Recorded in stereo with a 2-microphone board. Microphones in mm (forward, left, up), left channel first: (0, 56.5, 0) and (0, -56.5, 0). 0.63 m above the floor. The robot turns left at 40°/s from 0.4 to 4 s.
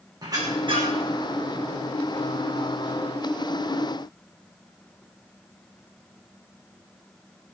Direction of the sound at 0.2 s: 35° right (ahead or behind).